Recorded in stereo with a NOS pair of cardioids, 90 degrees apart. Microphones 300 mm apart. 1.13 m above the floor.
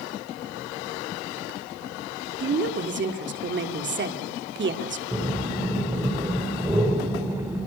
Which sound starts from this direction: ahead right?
A woman speaking, at 2.4 s.